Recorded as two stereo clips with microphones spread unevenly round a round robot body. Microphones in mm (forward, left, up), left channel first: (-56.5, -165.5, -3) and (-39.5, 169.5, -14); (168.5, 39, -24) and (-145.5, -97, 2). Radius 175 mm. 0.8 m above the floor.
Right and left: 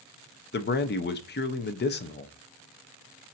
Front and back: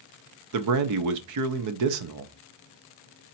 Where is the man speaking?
145° right, 0.6 m.